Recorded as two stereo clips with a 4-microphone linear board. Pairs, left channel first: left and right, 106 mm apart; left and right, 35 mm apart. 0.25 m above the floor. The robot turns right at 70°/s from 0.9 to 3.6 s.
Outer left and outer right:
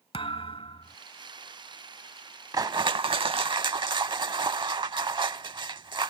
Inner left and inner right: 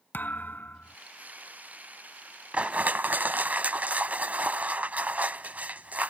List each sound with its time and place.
0.1 s a thud: 60° left (ahead or behind); by 1.0 s 55° left (ahead or behind)
2.5 s crushing: 135° right; by 6.1 s 60° right